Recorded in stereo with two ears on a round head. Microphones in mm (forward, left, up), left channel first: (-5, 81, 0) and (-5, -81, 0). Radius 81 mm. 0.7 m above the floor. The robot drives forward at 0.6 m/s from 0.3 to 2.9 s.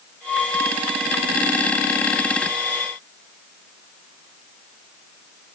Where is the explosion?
No explosion in this recording.